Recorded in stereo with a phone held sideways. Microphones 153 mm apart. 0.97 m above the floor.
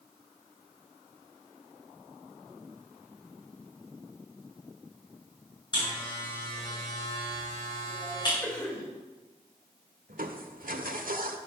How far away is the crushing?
About 1.2 m.